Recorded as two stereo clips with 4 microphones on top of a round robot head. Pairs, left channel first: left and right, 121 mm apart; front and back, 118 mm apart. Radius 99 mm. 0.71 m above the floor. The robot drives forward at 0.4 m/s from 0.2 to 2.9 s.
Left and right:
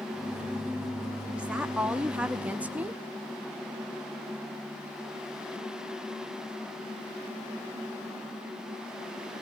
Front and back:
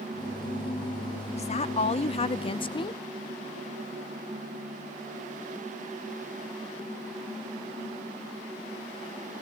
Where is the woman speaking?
10° right, 1.4 m; by 3.0 s 20° right, 0.9 m.